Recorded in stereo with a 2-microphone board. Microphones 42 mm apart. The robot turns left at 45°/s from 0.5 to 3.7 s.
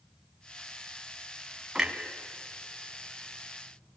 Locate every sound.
1.8 s a clunk: 15° right (ahead or behind), 2.0 m; by 1.9 s 20° right (ahead or behind), 2.0 m